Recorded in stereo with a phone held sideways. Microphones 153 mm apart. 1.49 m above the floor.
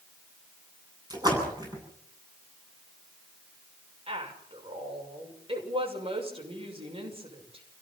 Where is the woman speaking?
35° right (ahead or behind), 6 m.